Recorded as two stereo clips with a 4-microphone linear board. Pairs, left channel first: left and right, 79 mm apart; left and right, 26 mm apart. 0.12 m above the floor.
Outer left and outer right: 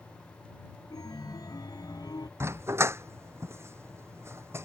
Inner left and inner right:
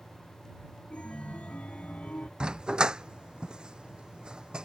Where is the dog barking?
35° right (ahead or behind).